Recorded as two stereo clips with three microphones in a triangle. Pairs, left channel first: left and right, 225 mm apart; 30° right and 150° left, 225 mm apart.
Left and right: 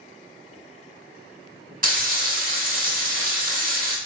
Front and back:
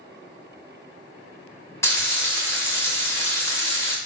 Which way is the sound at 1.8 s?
105° right.